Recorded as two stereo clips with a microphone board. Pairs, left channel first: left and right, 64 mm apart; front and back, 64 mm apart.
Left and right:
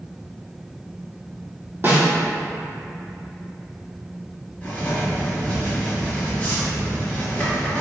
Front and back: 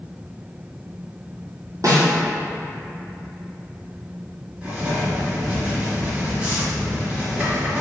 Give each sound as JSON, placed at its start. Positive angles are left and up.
{"t": 1.8, "sound": "a snare drum", "azimuth_deg": -145, "distance_m": 1.3}
{"t": 4.6, "sound": "writing", "azimuth_deg": 125, "distance_m": 1.6}